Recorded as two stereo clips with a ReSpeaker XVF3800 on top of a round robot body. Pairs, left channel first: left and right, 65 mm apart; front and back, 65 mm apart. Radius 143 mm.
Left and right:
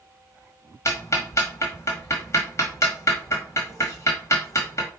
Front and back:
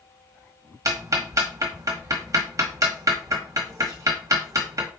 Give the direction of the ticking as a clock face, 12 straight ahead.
7 o'clock.